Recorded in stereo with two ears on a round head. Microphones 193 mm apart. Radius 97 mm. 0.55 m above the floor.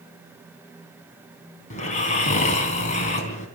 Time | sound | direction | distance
1.7 | snoring | 35° left (ahead or behind) | 3 m